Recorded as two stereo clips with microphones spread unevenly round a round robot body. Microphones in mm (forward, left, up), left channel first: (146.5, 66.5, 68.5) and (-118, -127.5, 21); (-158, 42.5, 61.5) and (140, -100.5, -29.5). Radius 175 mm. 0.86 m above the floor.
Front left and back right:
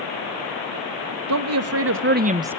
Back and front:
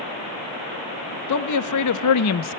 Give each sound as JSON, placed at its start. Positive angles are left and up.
{"t": 1.3, "sound": "a man speaking", "azimuth_deg": -170, "distance_m": 1.6}